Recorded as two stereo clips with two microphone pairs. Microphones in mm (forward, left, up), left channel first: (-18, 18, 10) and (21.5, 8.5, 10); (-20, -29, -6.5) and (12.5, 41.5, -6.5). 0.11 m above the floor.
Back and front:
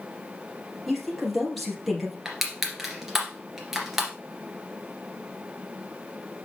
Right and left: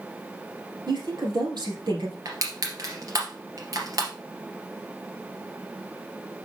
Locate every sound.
0.9 s a woman speaking: 80° left, 3 m
2.2 s crushing: 70° left, 2 m